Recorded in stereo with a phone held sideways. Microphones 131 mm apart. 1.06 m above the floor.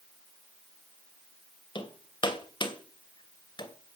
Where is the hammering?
35° left (ahead or behind), 2.5 m.